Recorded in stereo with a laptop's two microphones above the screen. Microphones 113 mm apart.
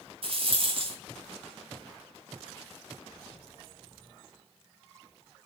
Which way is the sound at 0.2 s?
55° right (ahead or behind).